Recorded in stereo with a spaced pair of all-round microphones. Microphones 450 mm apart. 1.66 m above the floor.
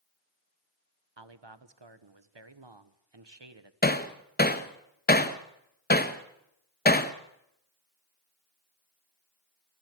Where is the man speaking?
65° right (ahead or behind), 1.3 m.